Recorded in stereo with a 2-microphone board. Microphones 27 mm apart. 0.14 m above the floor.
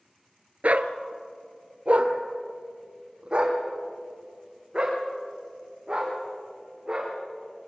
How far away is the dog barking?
About 0.8 m.